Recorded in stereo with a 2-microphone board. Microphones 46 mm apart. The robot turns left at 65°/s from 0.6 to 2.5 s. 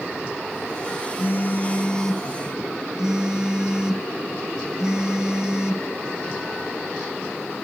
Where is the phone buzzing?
65° left, 0.7 m; by 5.9 s 20° right, 0.7 m.